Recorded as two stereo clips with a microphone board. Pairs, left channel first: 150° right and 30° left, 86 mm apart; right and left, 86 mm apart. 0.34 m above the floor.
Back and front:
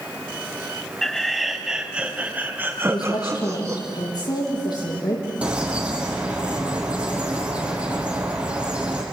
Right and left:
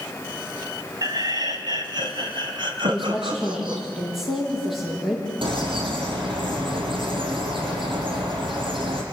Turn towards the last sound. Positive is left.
turn(degrees=105)